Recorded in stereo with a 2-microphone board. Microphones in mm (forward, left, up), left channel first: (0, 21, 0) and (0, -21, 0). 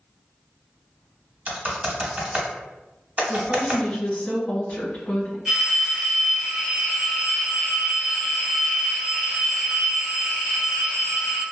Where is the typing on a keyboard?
30° right (ahead or behind), 0.8 m.